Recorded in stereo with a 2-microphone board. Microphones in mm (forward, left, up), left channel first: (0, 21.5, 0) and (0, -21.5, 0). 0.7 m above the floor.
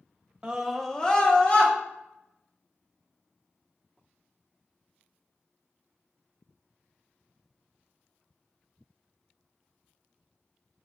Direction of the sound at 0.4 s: 25° right (ahead or behind).